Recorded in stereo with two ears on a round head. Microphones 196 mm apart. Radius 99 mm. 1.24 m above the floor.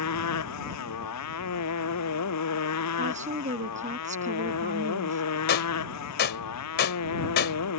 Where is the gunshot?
45° left (ahead or behind).